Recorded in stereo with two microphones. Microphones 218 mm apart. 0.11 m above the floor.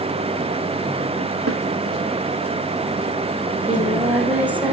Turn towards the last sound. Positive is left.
turn(degrees=-5)  # may be behind; listen again after turning